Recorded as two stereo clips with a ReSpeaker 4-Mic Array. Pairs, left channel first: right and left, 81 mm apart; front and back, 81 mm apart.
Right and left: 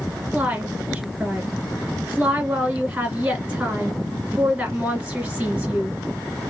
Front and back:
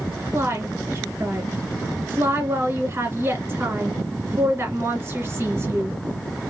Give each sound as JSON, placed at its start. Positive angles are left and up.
{"t": 0.3, "sound": "a woman speaking", "azimuth_deg": 155, "distance_m": 1.8}